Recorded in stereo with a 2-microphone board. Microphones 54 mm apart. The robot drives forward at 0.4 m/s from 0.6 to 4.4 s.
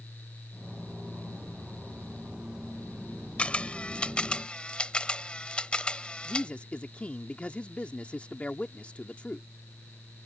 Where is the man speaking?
25° left (ahead or behind).